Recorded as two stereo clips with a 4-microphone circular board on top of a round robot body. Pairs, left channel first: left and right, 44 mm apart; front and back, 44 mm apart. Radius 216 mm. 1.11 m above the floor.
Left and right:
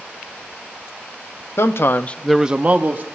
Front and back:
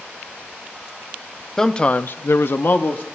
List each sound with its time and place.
1.6 s a man speaking: 80° left, 0.9 m; by 3.0 s 45° right, 1.2 m